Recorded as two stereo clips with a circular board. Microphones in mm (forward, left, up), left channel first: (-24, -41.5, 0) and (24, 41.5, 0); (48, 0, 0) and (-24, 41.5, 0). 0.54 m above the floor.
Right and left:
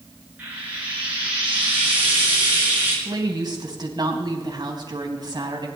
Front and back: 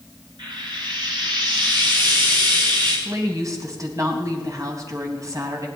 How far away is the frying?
About 8 m.